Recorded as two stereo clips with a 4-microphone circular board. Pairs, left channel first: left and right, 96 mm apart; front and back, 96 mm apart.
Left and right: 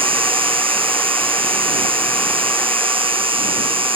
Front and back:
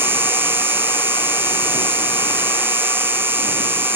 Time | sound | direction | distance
0.0 | an insect | 110° right | ?